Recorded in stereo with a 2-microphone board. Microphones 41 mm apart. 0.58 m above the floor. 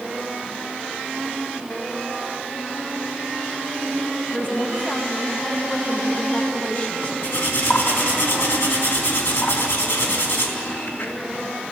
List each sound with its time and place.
4.3 s a woman speaking: 40° left (ahead or behind), 3 m
7.2 s cutlery clinking: 75° left (ahead or behind), 3.5 m